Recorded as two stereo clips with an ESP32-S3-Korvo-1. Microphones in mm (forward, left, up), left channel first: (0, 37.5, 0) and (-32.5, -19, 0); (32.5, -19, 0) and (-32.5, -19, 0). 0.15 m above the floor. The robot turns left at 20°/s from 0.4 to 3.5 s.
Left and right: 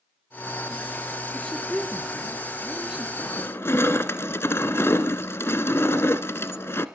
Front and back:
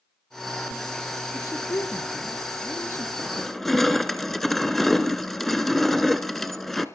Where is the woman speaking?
15° right, 2.5 m; by 3.1 s 50° right, 2.5 m.